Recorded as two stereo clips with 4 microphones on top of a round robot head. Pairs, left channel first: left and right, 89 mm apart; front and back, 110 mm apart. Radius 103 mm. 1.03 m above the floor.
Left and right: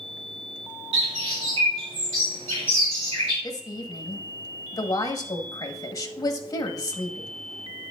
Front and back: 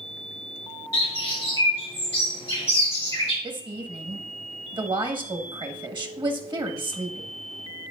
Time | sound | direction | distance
0.9 | a bird | 65° right | 3.5 m
3.4 | a woman speaking | 135° left | 1.6 m